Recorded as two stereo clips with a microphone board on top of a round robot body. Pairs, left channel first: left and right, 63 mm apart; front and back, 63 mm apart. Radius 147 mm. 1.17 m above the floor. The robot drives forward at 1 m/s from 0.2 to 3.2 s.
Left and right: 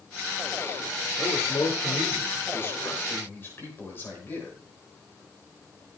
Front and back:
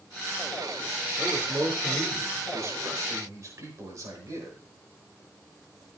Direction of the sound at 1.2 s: 115° left.